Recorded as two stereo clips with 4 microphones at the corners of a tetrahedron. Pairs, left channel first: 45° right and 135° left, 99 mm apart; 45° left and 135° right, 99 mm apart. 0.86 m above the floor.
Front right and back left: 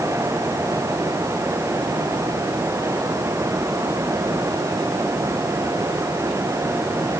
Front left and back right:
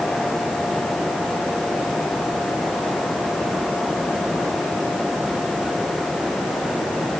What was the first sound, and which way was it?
Only background noise.